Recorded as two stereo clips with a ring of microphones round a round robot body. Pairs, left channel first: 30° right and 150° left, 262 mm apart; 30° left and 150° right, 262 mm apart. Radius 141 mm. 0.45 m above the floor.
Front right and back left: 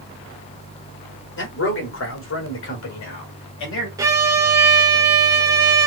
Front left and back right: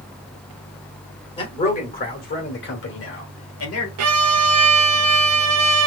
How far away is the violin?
About 0.8 m.